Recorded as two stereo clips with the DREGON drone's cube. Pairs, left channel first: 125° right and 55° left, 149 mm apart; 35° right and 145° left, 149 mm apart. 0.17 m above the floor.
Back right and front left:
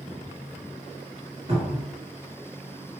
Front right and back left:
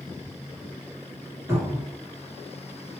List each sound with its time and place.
1.5 s a cupboard door: 85° left, 1.9 m